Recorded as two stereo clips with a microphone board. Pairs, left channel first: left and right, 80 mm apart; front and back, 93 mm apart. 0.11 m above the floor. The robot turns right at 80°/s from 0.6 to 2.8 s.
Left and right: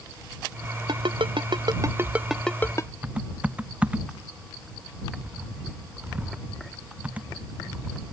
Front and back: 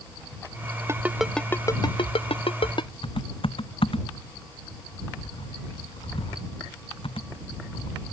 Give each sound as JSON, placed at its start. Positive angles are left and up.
{"t": 0.9, "sound": "a ringtone", "azimuth_deg": -120}
{"t": 3.0, "sound": "typing on a keyboard", "azimuth_deg": -15}